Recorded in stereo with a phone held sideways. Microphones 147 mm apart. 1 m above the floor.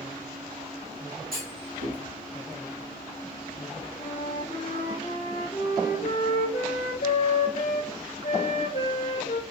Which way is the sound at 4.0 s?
55° left (ahead or behind).